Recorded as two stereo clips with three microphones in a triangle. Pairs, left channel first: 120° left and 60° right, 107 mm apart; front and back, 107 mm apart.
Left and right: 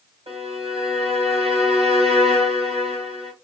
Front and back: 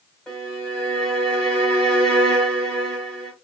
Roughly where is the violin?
Right.